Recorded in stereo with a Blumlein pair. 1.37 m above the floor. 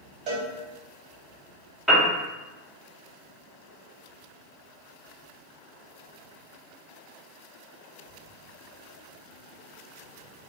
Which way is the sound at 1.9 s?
5° right.